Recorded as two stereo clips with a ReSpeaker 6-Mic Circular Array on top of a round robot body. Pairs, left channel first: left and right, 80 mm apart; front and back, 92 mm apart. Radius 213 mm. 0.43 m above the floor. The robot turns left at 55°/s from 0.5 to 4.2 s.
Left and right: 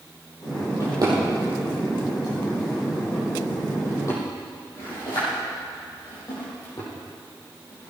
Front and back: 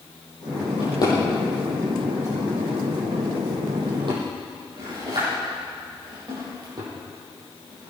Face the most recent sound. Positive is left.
turn(degrees=135)